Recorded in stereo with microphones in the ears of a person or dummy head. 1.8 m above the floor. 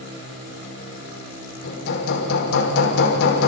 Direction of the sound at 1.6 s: 75° left (ahead or behind).